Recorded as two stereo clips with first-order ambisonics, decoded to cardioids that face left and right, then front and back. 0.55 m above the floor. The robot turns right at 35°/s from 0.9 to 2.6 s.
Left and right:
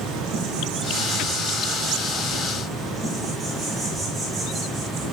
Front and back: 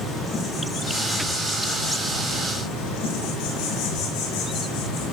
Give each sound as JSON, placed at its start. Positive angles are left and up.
{"t": 0.0, "sound": "an insect", "azimuth_deg": -70, "distance_m": 5.0}